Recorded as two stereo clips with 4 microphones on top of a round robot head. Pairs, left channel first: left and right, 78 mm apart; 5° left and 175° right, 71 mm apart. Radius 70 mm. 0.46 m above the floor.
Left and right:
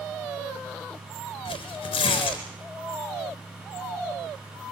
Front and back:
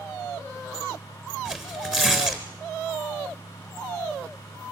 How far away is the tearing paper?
About 3.5 m.